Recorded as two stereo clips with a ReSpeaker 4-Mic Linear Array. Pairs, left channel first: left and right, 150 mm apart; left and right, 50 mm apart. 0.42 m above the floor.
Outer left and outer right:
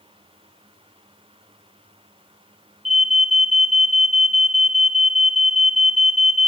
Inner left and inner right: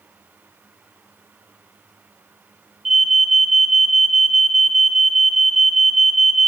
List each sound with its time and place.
2.9 s an alarm: centre (ahead or behind), 1.1 m